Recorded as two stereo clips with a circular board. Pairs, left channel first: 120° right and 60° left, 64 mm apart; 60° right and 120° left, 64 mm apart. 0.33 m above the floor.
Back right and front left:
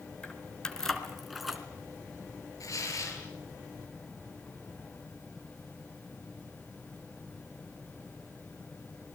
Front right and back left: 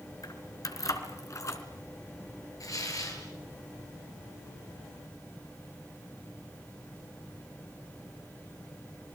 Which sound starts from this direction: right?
Tearing paper, at 2.6 s.